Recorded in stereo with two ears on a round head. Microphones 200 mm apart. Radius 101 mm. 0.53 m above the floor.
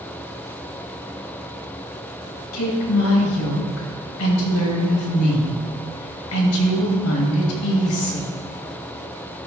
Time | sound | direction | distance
2.5 | a woman speaking | 70° left (ahead or behind) | 2.5 m